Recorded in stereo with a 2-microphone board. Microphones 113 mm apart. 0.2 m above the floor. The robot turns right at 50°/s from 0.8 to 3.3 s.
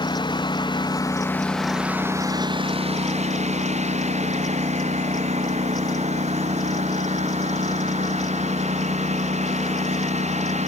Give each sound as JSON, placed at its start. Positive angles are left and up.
{"t": 0.0, "sound": "a lawn mower", "azimuth_deg": 135}